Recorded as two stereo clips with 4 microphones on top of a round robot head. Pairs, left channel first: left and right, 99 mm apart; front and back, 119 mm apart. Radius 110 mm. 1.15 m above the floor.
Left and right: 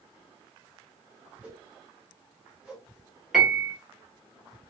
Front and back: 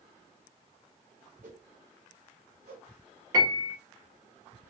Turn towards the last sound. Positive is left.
turn(degrees=180)